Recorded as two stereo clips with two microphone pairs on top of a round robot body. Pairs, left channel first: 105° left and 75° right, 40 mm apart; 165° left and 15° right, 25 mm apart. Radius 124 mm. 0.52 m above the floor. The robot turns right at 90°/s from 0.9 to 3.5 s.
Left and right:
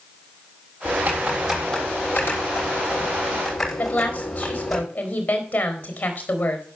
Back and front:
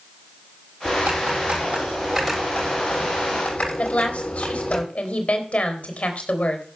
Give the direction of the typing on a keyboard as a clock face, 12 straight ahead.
2 o'clock.